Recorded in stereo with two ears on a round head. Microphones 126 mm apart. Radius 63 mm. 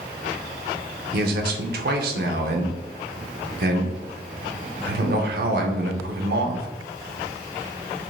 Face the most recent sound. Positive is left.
turn(degrees=-80)